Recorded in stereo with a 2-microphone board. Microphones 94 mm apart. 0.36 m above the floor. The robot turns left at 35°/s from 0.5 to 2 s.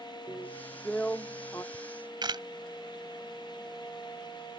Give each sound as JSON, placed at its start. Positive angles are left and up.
{"t": 0.3, "sound": "a drill", "azimuth_deg": -175}
{"t": 1.7, "sound": "a camera shutter", "side_deg": -55}